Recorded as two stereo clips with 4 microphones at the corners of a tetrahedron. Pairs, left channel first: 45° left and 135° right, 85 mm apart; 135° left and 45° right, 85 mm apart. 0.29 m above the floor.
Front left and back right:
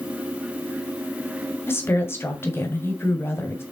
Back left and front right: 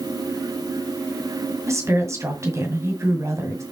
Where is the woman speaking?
5° right, 1.8 m.